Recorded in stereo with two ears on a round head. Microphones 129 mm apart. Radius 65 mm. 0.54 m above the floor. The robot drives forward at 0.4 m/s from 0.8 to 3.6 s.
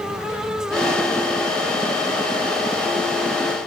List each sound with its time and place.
Only background noise.